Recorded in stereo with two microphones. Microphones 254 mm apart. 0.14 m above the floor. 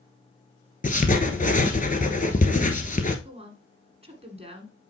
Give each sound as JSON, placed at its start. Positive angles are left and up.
{"t": 0.8, "sound": "writing", "side_deg": 35, "distance_m": 1.0}
{"t": 3.2, "sound": "a woman speaking", "side_deg": -25, "distance_m": 1.4}